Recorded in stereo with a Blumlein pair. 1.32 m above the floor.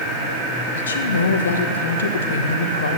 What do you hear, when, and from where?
0.8 s a woman speaking: 70° left, 1.2 m